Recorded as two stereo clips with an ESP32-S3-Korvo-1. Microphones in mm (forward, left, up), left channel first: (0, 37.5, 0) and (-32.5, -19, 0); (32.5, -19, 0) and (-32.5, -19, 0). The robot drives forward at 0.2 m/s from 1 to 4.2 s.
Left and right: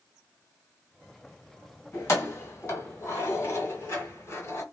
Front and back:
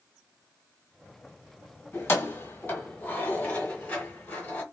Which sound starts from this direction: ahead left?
Keys jangling, at 1.9 s.